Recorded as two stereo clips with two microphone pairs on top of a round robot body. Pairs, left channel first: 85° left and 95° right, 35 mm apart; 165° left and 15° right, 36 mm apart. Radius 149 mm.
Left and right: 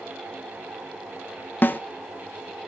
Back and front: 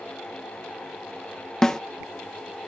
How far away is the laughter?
No laughter in this recording.